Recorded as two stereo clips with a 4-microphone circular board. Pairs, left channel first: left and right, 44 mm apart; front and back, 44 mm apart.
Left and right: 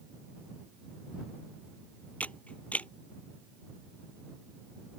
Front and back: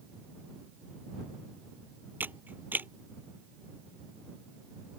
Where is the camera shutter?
145° left.